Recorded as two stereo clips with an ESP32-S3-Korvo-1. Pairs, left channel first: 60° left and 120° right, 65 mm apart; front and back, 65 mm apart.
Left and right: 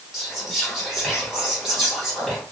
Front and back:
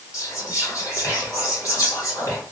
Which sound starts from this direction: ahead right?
Whispering, at 0.1 s.